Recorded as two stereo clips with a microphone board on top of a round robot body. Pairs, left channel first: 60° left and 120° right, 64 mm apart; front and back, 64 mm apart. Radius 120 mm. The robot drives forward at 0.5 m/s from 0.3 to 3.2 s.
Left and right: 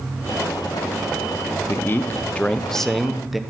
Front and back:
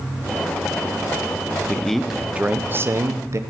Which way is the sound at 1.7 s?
60° left.